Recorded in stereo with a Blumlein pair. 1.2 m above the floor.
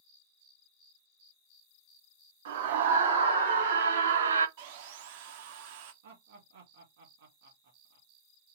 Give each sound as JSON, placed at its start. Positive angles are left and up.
{"t": 2.5, "sound": "a scream", "azimuth_deg": -60, "distance_m": 2.5}
{"t": 4.6, "sound": "sawing", "azimuth_deg": -50, "distance_m": 0.9}
{"t": 6.0, "sound": "laughter", "azimuth_deg": -55, "distance_m": 2.0}